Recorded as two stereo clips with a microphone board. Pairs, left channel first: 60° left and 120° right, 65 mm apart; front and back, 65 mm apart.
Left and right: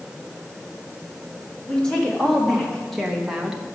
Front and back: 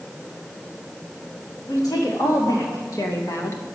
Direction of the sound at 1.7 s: 15° right.